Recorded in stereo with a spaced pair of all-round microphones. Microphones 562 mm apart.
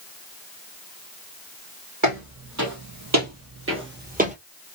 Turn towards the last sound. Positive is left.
turn(degrees=-10)  # may be behind; listen again after turning